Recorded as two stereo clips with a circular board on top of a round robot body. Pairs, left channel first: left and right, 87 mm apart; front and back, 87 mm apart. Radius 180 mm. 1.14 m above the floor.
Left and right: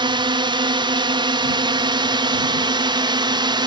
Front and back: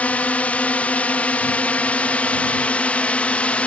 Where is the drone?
75° right.